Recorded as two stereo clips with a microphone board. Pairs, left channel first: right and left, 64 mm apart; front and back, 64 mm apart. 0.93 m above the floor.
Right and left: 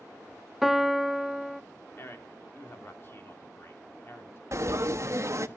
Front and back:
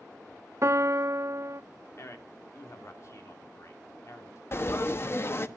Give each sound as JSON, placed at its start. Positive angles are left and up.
{"t": 0.6, "sound": "a piano", "azimuth_deg": 175, "distance_m": 0.6}
{"t": 2.0, "sound": "a man speaking", "azimuth_deg": -40, "distance_m": 2.5}
{"t": 4.5, "sound": "frying", "azimuth_deg": 50, "distance_m": 1.1}